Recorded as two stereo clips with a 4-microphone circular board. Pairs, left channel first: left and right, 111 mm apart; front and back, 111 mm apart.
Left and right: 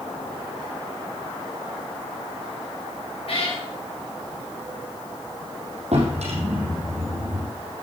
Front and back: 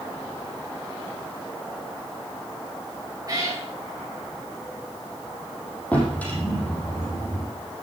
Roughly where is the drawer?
Right.